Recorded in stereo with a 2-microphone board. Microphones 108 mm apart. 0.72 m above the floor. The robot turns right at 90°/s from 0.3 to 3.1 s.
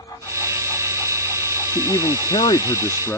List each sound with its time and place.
1.7 s a man speaking: 35° left; by 3.2 s 160° left